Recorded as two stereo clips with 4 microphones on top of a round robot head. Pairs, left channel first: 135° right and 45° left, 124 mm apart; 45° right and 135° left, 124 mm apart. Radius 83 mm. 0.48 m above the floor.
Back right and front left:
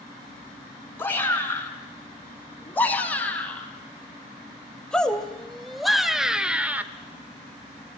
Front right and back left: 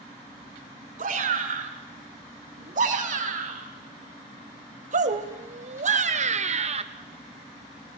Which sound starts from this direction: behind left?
A shout, at 1.0 s.